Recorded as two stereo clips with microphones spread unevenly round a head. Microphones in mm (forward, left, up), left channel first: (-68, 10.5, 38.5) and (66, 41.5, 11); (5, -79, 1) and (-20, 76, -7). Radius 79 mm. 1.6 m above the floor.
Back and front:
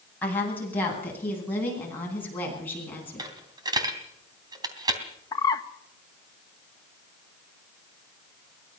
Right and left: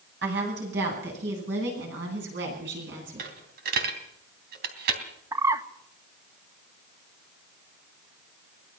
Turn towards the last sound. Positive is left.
turn(degrees=165)